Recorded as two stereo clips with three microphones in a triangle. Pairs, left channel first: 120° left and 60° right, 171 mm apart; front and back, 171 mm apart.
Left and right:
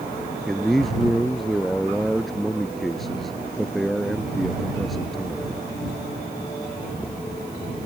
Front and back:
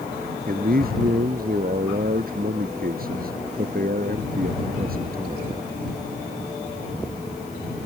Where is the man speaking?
150° right.